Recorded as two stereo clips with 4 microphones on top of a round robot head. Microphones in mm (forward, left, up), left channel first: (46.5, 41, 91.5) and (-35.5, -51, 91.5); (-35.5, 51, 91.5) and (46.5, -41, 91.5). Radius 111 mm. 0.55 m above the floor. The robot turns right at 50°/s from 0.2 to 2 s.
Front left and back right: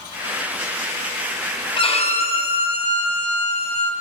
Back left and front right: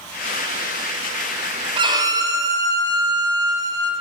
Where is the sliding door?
I don't hear a sliding door.